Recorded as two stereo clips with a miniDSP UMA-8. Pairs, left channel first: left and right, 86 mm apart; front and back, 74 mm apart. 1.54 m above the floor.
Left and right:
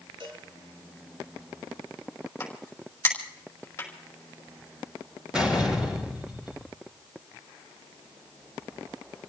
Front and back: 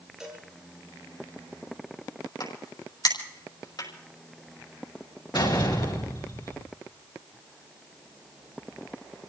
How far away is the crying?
I don't hear crying.